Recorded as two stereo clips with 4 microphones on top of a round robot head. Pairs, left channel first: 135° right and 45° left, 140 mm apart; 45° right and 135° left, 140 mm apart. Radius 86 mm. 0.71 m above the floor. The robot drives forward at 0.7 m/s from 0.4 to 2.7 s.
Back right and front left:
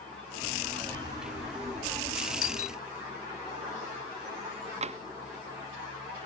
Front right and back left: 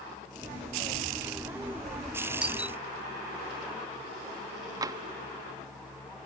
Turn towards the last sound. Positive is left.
turn(degrees=75)